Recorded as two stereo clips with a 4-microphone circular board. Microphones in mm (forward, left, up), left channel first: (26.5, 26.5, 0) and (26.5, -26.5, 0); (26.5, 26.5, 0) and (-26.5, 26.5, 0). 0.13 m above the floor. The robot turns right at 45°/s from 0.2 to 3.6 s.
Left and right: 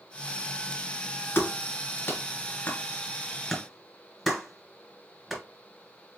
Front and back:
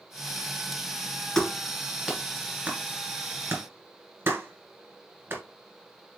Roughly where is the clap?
Left.